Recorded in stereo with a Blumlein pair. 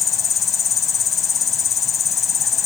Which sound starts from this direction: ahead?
An insect, at 0.0 s.